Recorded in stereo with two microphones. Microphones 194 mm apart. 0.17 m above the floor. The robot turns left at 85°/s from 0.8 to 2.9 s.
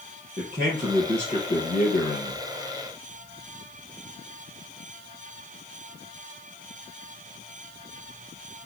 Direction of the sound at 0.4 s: 135° right.